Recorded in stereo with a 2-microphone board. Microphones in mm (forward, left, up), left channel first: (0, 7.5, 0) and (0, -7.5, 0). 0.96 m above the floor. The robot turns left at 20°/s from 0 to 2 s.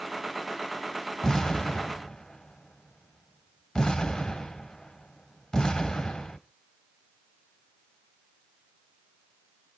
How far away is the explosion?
About 2 m.